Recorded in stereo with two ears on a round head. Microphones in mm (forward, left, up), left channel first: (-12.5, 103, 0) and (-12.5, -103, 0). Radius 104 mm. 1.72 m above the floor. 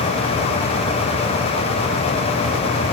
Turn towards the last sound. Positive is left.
No sound to turn to.